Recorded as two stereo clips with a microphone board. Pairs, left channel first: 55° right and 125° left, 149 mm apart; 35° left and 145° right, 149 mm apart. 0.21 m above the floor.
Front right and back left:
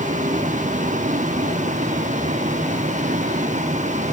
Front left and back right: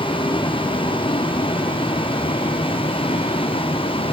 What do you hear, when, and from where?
0.0 s a vehicle: 90° left